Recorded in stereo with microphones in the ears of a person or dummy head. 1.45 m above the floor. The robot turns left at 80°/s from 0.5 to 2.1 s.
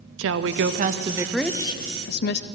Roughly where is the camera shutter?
No camera shutter in this recording.